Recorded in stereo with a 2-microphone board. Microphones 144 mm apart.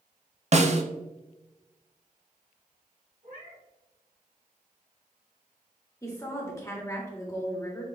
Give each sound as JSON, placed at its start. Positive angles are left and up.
{"t": 0.5, "sound": "a snare drum", "side_deg": -50, "distance_m": 0.6}
{"t": 3.2, "sound": "a cat meowing", "side_deg": -65, "distance_m": 1.6}
{"t": 6.0, "sound": "a woman speaking", "side_deg": 20, "distance_m": 1.7}